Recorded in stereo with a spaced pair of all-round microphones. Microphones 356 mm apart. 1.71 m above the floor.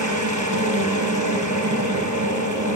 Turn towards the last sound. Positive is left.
turn(degrees=-55)  # may be behind; listen again after turning